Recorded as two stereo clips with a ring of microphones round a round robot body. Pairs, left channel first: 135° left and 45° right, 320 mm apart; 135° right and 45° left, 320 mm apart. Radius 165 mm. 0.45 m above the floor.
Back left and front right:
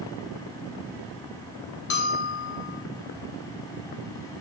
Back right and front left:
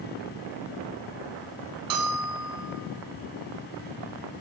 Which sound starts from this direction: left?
A bell, at 1.9 s.